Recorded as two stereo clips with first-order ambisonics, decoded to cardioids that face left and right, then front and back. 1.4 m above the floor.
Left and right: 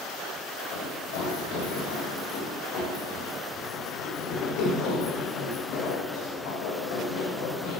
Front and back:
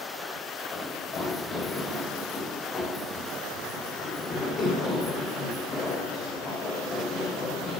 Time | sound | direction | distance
0.7 | running footsteps | 70° left | 4.5 m